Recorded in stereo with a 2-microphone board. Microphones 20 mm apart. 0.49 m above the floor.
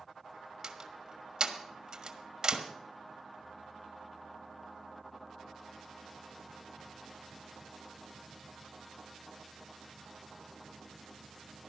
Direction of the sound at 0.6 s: 45° right (ahead or behind).